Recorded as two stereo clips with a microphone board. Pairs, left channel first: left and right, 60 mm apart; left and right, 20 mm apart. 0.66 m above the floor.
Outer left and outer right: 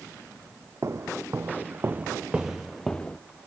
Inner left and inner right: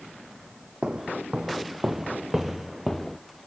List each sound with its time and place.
0.8 s footsteps: 50° right (ahead or behind), 1.3 m; by 3.2 s 20° left (ahead or behind), 0.8 m